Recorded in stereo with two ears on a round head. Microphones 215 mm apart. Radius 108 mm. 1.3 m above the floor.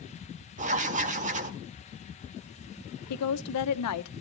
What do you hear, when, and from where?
0.6 s writing: 30° right (ahead or behind), 1.3 m
3.1 s a woman speaking: 75° left (ahead or behind), 0.8 m